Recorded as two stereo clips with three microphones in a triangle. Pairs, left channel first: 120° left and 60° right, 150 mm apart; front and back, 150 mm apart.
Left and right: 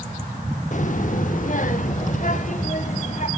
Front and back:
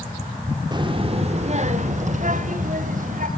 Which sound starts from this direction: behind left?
A child speaking, at 0.7 s.